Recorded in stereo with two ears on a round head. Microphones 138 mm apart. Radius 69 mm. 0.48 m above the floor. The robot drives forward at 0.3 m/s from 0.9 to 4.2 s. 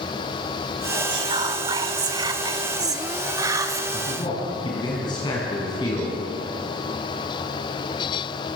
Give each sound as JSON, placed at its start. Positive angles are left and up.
{"t": 1.1, "sound": "whispering", "side_deg": -30, "distance_m": 1.5}
{"t": 3.9, "sound": "a man speaking", "side_deg": 30, "distance_m": 5.5}